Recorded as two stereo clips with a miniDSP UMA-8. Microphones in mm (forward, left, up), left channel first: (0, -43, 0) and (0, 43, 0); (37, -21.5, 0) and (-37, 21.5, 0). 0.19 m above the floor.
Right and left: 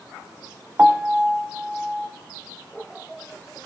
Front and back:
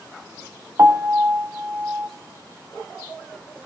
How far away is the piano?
About 1.0 m.